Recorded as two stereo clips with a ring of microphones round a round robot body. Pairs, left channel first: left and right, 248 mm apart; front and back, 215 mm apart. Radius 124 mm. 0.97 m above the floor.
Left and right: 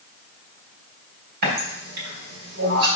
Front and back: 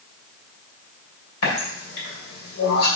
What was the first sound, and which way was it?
A running tap, 35° right.